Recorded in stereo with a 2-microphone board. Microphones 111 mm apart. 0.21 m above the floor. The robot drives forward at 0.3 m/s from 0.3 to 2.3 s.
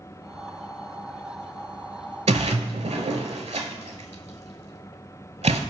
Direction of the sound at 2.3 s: 85° right.